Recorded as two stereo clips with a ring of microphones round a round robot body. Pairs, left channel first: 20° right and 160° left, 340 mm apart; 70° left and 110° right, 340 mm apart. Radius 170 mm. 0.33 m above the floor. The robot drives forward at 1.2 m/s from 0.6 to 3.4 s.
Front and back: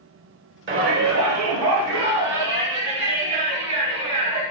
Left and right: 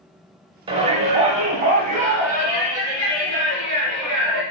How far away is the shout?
About 1.1 m.